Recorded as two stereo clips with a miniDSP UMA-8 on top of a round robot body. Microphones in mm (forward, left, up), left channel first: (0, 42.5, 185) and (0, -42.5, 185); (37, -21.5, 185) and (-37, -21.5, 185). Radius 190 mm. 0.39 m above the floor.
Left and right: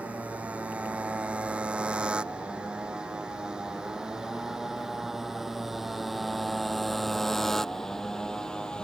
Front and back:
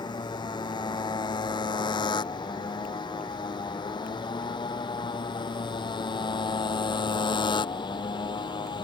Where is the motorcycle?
15° right; by 8.8 s 10° left.